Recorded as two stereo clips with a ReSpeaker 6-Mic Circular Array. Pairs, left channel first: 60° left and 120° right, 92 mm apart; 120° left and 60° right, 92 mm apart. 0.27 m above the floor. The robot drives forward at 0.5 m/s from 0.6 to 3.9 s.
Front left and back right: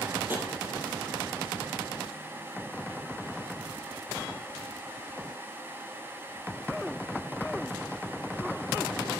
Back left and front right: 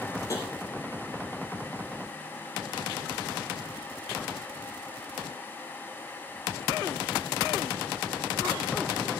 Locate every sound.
0.3 s tapping: 175° left, 5 m